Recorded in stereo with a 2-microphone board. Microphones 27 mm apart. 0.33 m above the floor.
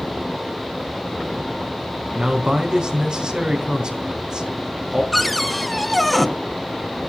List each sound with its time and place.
2.1 s a man speaking: 35° right (ahead or behind), 3.5 m
5.1 s a cupboard door: 5° left (ahead or behind), 1.3 m